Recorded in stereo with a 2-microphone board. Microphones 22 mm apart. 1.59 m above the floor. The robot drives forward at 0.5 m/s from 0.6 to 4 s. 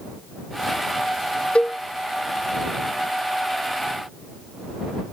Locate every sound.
1.6 s a cowbell: 65° left (ahead or behind); by 1.8 s 70° left (ahead or behind)